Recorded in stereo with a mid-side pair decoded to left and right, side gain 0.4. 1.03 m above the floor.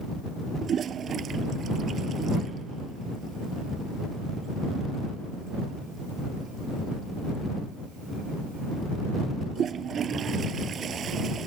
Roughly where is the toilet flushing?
Ahead right.